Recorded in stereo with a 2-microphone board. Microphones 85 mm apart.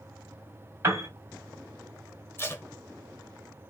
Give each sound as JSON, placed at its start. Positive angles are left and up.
{"t": 0.8, "sound": "a piano", "side_deg": -30, "distance_m": 2.5}
{"t": 2.4, "sound": "tape being pulled", "side_deg": 30, "distance_m": 0.7}